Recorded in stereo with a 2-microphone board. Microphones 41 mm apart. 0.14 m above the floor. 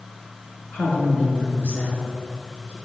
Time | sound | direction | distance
0.7 | a woman speaking | 30° left (ahead or behind) | 1.6 m